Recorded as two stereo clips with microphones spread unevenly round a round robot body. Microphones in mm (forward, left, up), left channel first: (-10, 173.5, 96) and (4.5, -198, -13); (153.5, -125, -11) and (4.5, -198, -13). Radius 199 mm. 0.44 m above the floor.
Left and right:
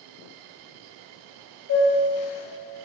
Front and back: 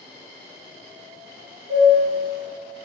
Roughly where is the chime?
Behind left.